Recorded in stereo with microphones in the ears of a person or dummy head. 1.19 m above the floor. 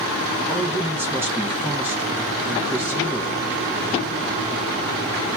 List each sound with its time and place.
0.5 s a man speaking: 10° right (ahead or behind), 0.8 m